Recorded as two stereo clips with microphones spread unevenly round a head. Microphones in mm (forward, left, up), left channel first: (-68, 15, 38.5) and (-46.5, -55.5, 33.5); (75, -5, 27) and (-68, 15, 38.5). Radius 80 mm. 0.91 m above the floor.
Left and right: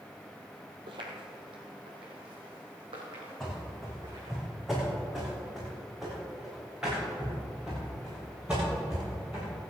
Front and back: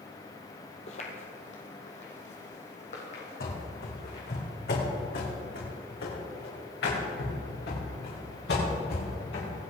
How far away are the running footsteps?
About 3.5 m.